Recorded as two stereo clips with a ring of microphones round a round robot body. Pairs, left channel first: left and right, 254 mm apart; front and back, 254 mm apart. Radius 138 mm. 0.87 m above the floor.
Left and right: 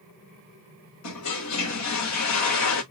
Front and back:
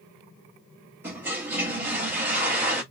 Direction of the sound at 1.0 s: 100° left.